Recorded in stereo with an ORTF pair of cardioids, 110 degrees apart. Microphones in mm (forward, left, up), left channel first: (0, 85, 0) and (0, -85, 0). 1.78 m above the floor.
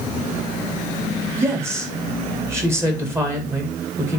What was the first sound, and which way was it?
A woman speaking, 15° right.